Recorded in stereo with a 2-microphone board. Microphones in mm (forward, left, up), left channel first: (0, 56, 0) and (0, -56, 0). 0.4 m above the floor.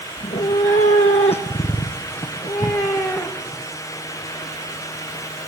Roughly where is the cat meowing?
Left.